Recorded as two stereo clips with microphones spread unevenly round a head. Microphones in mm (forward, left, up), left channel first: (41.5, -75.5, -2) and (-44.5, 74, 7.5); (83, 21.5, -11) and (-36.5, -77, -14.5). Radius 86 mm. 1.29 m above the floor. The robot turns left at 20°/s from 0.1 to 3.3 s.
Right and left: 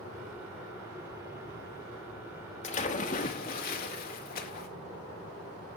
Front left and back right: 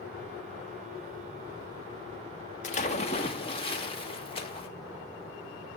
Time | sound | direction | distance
2.6 | a splash | 5° right | 2 m